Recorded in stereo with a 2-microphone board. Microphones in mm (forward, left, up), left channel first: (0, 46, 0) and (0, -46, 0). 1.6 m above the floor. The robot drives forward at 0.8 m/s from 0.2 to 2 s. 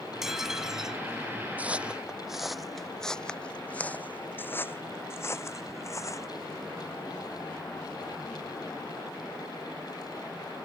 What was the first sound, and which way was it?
Dishes clattering, 5° right (ahead or behind).